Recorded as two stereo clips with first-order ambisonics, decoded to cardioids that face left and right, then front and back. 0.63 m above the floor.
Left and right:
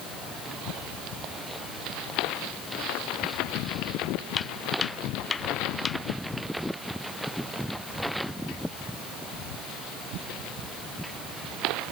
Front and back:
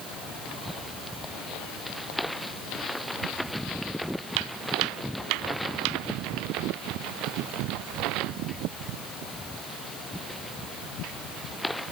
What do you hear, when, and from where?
4.4 s footsteps: 155° left; by 6.0 s 165° left